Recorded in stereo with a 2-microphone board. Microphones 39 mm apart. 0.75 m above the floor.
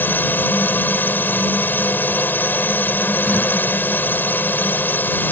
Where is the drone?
55° left (ahead or behind).